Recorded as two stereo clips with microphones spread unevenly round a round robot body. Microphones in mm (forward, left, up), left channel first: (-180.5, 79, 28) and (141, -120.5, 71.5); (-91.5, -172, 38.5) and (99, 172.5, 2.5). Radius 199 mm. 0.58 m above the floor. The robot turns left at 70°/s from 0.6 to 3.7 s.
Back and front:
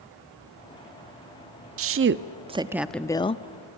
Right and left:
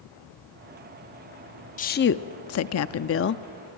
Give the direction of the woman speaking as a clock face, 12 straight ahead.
2 o'clock.